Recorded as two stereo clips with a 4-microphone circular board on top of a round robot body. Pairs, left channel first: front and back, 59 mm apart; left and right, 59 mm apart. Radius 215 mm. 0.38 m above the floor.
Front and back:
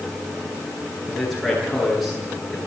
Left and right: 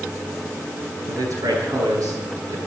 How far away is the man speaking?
About 10 m.